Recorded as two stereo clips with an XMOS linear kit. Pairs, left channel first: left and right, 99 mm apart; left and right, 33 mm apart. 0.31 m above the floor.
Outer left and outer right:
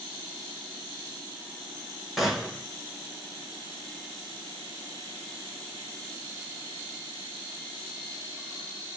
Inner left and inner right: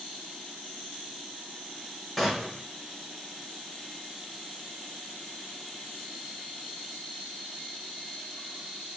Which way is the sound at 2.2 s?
5° right (ahead or behind).